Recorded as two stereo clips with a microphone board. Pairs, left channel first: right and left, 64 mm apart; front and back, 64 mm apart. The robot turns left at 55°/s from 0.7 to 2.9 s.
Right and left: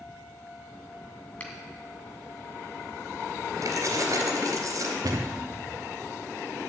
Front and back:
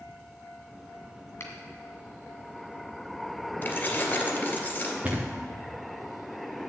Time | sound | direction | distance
1.4 | a finger snap | 30° right | 1.9 m
3.6 | keys jangling | 65° left | 2.5 m
5.0 | a thud | 110° left | 2 m